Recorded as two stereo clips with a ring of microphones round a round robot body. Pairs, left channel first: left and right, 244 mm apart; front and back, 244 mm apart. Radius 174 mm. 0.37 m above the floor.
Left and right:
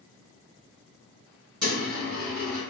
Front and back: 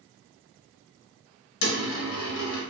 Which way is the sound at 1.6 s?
5° left.